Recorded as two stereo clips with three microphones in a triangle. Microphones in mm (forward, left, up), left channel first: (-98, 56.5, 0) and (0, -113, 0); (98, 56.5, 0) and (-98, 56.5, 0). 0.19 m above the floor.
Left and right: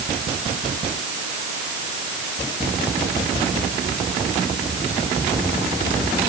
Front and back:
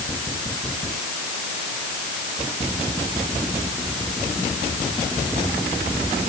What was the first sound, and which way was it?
Only background noise.